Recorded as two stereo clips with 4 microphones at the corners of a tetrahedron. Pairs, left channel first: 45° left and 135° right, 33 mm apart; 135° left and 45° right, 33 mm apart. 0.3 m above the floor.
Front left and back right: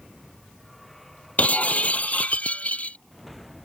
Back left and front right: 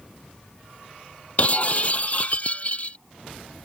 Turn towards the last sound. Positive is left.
turn(degrees=85)